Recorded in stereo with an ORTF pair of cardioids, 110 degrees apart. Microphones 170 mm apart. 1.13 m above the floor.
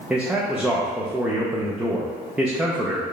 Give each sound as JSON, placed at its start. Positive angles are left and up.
{"t": 0.1, "sound": "a man speaking", "azimuth_deg": -5, "distance_m": 0.6}